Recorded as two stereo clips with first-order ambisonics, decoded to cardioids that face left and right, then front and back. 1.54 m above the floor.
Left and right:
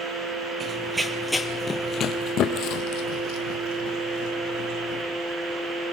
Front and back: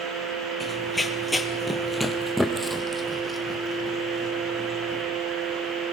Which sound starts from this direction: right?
Running footsteps, at 0.6 s.